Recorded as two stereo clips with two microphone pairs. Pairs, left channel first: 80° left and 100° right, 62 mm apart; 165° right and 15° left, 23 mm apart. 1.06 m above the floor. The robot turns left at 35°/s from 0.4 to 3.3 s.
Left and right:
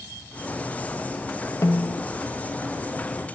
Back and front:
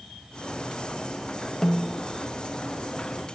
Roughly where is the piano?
I don't hear a piano.